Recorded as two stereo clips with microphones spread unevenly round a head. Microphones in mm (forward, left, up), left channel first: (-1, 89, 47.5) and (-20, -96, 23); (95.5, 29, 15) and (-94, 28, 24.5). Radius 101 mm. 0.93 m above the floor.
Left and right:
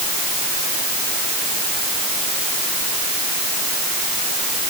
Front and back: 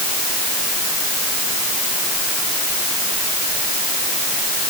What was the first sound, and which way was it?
Only background noise.